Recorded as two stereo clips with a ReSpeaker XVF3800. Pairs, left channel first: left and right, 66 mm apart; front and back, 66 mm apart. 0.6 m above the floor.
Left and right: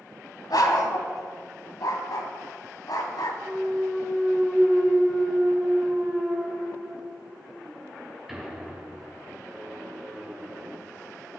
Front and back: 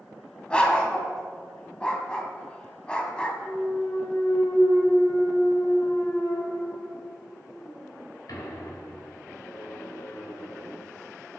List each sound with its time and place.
0.5 s a dog barking: 75° left, 1.6 m
3.4 s a clunk: 5° right, 3 m